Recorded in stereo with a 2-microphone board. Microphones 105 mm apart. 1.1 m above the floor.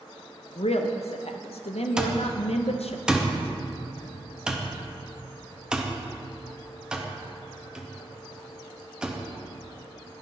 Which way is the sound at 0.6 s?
80° left.